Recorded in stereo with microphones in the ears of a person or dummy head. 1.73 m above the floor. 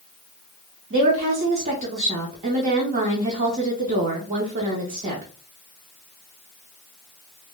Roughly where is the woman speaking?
Right.